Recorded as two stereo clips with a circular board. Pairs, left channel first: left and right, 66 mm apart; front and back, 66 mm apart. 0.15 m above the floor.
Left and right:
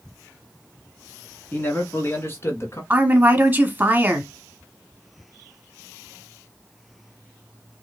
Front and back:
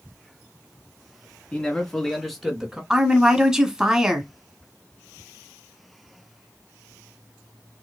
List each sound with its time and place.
1.5 s a man speaking: 55° left, 1.6 m; by 2.8 s 100° left, 1.7 m
2.9 s a woman speaking: 110° right, 1.1 m